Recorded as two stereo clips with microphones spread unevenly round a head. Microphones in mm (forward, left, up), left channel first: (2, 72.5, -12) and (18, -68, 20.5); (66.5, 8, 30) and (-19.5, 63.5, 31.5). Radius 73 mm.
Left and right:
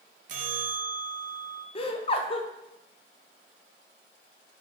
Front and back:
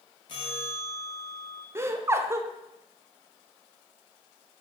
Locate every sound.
0.3 s a bell: 90° right, 0.5 m
1.8 s laughter: 90° left, 0.6 m